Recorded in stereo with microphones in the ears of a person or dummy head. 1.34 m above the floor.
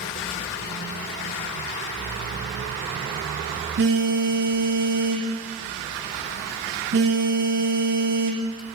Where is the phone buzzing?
60° right (ahead or behind), 1.0 m.